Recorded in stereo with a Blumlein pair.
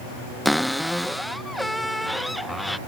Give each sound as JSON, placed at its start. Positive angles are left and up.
{"t": 0.5, "sound": "a cupboard door", "azimuth_deg": 5}